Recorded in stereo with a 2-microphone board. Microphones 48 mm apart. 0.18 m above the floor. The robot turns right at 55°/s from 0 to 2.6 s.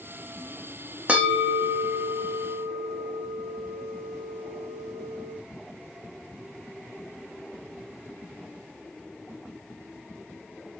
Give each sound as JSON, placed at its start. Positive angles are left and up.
{"t": 1.1, "sound": "a bell", "azimuth_deg": -150, "distance_m": 4.5}